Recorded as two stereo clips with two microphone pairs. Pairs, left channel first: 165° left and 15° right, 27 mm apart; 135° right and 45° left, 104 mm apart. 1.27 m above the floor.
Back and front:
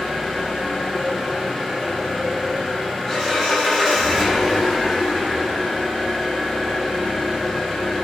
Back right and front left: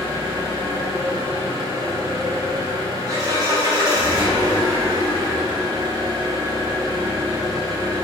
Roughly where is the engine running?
Left.